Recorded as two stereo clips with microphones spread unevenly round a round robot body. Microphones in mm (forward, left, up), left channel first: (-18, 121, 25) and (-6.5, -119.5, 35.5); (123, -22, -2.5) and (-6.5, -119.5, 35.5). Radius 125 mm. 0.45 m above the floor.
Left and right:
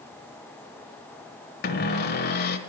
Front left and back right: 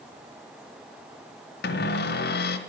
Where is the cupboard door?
40° left, 1.0 m.